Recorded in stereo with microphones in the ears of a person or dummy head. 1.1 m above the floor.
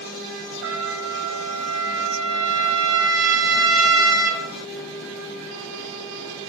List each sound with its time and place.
0.6 s a trumpet: 70° right (ahead or behind), 2.5 m